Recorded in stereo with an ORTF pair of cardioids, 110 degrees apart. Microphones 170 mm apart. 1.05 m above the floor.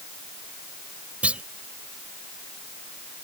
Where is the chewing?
No chewing in this recording.